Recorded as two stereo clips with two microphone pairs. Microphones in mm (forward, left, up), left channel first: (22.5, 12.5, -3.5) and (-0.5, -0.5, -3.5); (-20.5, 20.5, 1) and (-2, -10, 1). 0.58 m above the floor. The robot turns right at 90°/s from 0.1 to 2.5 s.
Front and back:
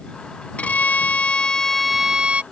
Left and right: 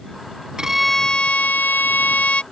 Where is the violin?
10° left; by 2.4 s 175° left.